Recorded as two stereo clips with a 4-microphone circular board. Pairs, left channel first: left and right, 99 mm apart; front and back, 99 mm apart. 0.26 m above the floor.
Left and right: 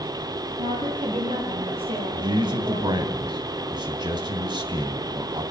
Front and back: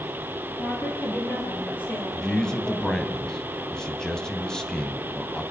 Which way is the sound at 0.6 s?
75° right.